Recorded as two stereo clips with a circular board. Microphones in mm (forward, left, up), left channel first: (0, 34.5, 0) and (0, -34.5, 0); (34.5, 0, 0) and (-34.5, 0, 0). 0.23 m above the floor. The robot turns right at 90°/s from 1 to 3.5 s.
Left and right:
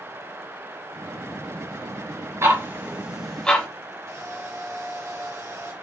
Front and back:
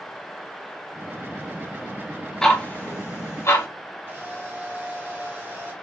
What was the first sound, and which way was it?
Ticking, 75° right.